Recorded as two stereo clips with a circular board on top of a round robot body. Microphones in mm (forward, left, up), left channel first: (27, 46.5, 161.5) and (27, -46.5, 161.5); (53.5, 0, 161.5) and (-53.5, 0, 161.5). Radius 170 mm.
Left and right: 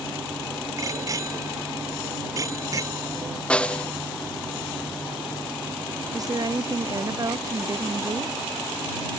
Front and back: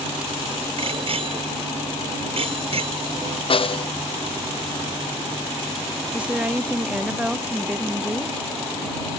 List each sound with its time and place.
0.8 s a bicycle bell: 145° right
3.5 s a snare drum: 10° left
6.1 s a woman speaking: 110° right